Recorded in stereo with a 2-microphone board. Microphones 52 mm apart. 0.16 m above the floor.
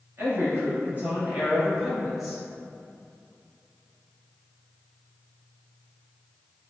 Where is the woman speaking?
50° right (ahead or behind), 1.7 m; by 2.4 s 5° left (ahead or behind), 1.2 m.